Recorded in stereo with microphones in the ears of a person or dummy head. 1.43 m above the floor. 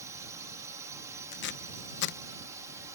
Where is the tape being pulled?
60° left (ahead or behind).